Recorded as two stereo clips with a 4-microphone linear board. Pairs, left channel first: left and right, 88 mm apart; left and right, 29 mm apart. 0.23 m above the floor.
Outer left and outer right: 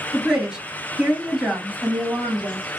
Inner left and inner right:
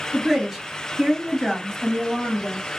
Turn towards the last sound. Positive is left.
turn(degrees=-10)  # may be behind; listen again after turning